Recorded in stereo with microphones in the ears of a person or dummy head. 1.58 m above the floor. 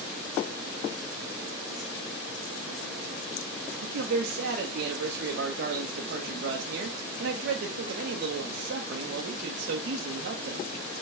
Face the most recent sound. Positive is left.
turn(degrees=-65)  # may be behind; listen again after turning